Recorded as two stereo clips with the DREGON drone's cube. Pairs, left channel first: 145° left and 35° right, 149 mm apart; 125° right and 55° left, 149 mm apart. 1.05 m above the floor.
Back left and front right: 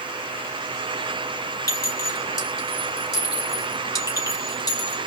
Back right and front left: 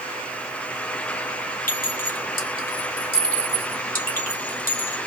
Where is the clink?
150° right, 2 m.